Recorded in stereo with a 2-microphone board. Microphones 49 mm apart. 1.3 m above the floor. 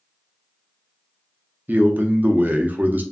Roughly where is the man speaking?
Right.